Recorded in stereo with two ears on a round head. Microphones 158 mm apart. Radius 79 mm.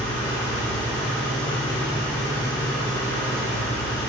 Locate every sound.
0.0 s an engine running: 10° left (ahead or behind), 3 m